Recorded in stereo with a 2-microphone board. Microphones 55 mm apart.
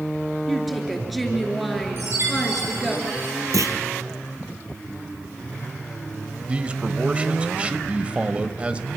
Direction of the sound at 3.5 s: 75° right (ahead or behind).